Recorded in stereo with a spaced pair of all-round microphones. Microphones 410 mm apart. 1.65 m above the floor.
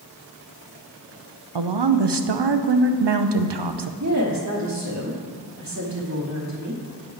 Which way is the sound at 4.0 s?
45° right (ahead or behind).